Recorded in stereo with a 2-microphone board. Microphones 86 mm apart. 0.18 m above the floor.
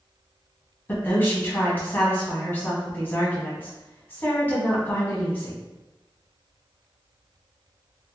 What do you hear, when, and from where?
0.9 s a woman speaking: 25° left (ahead or behind), 1.1 m